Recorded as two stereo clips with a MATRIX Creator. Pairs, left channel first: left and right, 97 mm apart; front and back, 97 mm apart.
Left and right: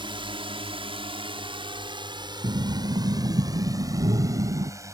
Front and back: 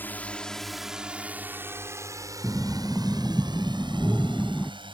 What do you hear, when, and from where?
0.0 s a drone: 70° right; by 4.9 s 150° right
2.4 s breathing: 75° right